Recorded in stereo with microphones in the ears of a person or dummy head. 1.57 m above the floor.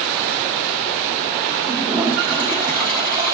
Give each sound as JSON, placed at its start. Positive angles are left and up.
{"t": 1.6, "sound": "a toilet flushing", "side_deg": -25, "distance_m": 4.0}